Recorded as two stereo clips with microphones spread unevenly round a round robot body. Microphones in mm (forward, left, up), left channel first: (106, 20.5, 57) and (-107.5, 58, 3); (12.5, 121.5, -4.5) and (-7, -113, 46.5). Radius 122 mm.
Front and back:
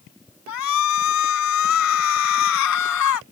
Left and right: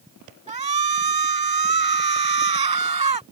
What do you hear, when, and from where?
0.5 s a shout: 30° right